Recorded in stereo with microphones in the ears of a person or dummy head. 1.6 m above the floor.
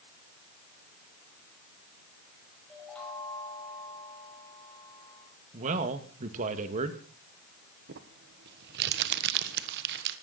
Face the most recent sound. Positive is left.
turn(degrees=-65)  # may be behind; listen again after turning